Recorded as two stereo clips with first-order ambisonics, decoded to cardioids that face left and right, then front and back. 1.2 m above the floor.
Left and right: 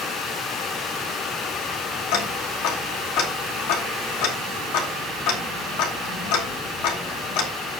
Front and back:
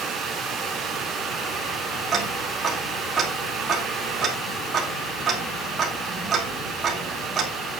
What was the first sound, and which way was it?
Ticking, 110° left.